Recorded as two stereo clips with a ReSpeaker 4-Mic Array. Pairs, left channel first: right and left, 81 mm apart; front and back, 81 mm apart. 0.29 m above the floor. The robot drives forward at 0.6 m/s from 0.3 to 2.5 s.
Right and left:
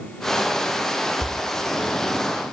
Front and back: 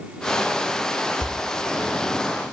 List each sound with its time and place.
1.2 s a door slam: 35° right, 2.5 m